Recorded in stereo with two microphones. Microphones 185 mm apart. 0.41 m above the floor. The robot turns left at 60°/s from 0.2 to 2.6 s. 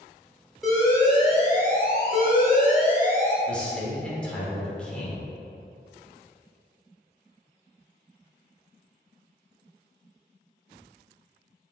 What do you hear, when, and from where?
0.6 s an alarm: straight behind, 0.9 m; by 3.4 s 60° left, 0.9 m
3.5 s a man speaking: 5° left (ahead or behind), 0.9 m